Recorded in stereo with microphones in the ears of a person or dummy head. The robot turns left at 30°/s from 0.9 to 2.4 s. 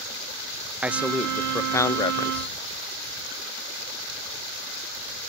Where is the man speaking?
170° right; by 2.6 s 145° left.